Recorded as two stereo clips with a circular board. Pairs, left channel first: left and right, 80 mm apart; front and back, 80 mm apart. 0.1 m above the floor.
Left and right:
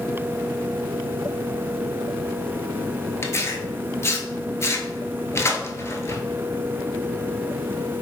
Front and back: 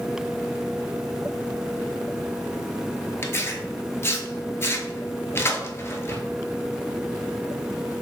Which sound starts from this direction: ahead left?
Tearing paper, at 3.2 s.